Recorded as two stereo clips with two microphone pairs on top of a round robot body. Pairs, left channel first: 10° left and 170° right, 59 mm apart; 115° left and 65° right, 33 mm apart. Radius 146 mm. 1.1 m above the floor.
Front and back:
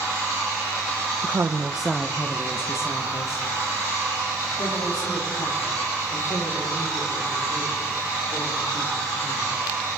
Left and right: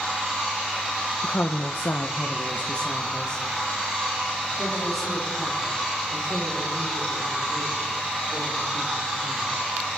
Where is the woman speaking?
150° left, 0.8 m; by 9.6 s 25° left, 8 m.